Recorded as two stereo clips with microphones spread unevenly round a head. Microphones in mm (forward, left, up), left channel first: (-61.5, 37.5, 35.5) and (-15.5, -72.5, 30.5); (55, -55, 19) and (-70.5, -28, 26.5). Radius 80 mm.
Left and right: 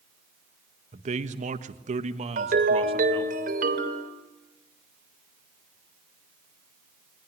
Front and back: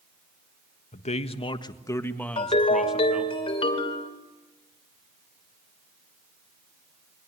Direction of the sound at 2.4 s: 60° right.